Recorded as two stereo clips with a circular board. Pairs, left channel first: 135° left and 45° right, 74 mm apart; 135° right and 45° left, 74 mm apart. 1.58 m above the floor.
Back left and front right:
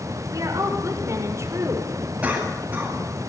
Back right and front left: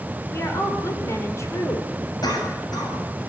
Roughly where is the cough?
Behind right.